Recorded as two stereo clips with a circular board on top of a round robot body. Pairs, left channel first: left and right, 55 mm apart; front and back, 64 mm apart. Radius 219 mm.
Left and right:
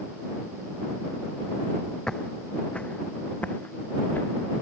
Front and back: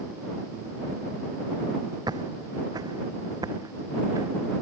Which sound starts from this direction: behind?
Footsteps, at 2.1 s.